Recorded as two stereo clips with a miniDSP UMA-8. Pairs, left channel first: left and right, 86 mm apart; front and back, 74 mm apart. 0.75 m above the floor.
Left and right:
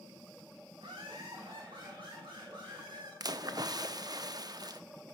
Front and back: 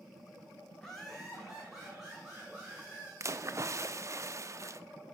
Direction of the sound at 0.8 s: 80° right.